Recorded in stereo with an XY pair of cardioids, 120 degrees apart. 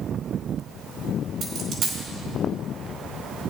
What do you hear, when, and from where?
1.4 s a dropped coin: 65° right, 4.5 m